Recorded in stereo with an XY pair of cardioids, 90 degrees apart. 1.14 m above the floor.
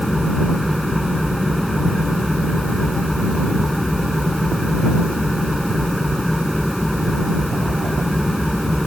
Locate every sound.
0.0 s an engine running: straight ahead